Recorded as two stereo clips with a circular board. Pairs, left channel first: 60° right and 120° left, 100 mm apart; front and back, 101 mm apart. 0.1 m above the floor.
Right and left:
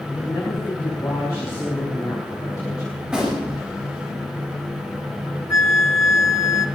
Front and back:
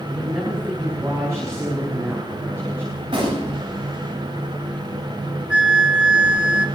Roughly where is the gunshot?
Behind.